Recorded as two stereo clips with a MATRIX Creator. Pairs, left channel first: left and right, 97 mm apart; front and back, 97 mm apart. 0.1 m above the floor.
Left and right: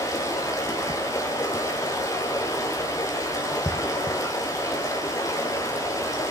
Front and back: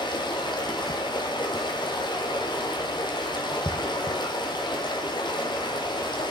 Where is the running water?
35° left, 2.5 m.